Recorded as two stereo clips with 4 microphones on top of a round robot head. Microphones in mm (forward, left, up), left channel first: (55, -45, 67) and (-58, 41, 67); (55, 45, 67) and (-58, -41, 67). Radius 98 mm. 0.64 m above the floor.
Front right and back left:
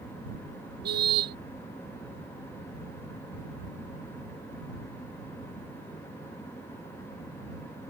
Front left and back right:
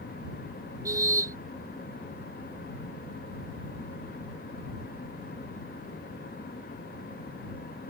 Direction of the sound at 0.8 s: 150° left.